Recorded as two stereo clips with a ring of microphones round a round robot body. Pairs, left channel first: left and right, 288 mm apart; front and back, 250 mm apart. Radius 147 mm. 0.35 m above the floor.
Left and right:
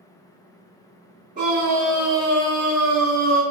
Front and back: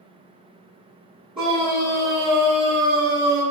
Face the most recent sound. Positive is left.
turn(degrees=-65)